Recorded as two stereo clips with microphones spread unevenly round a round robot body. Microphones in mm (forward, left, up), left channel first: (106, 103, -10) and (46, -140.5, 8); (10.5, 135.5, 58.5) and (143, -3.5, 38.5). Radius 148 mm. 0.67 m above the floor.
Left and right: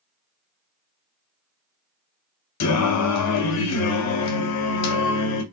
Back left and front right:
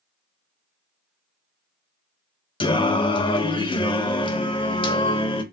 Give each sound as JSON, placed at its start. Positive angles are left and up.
{"t": 2.6, "sound": "singing", "azimuth_deg": 65, "distance_m": 0.6}